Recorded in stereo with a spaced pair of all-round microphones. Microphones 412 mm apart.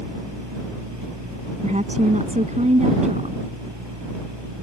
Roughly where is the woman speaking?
Centre.